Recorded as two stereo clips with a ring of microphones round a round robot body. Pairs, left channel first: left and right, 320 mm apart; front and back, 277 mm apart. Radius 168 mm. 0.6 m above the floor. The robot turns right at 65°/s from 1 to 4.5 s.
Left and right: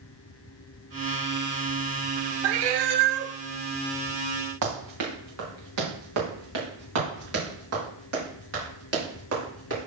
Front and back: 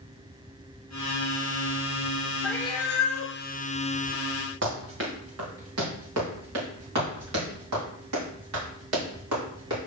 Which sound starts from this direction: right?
A cat meowing, at 2.4 s.